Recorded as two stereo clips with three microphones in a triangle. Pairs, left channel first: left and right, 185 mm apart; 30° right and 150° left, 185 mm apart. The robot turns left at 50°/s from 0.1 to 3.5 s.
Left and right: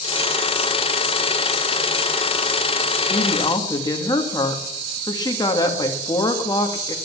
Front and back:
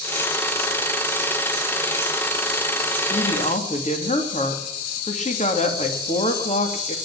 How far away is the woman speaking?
About 2.5 m.